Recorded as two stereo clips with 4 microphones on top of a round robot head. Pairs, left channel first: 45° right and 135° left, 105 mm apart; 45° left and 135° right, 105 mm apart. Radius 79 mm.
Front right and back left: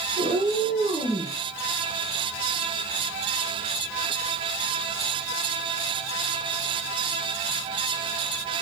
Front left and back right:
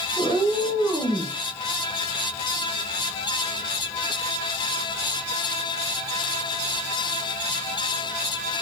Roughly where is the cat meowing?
Behind left.